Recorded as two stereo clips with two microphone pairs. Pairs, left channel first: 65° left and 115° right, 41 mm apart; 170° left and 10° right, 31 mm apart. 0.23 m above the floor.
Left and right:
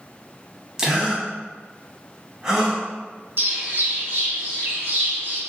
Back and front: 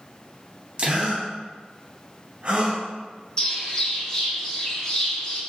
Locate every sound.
0.8 s a gasp: 45° right, 0.8 m
3.4 s a bird: 130° right, 1.2 m